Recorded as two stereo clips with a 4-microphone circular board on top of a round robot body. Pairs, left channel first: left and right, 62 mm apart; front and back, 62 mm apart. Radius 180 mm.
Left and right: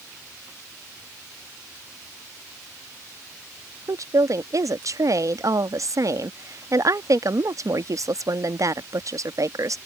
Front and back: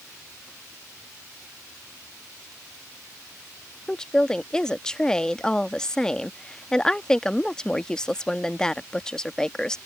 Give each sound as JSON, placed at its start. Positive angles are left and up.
{"t": 3.9, "sound": "a woman speaking", "azimuth_deg": -80}